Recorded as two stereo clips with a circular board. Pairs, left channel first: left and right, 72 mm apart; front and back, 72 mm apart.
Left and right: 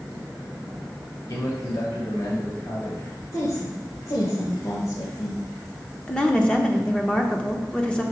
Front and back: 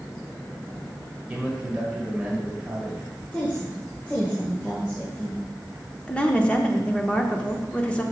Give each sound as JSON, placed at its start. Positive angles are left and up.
{"t": 1.3, "sound": "a man speaking", "azimuth_deg": 110, "distance_m": 2.0}
{"t": 3.3, "sound": "a woman speaking", "azimuth_deg": 70, "distance_m": 1.9}
{"t": 6.1, "sound": "a woman speaking", "azimuth_deg": 45, "distance_m": 0.8}